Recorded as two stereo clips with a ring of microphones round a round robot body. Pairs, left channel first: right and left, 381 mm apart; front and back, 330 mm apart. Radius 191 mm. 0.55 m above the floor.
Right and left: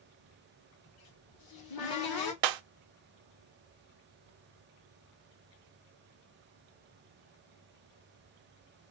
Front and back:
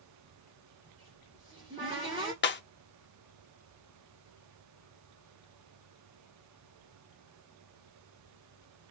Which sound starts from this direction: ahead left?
Breaking glass, at 2.4 s.